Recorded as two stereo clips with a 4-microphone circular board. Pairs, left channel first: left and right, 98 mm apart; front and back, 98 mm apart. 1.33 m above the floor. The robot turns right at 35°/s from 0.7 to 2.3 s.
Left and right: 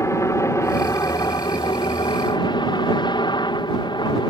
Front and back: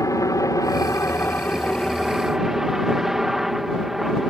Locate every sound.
0.0 s a helicopter: 40° left; by 4.3 s 95° left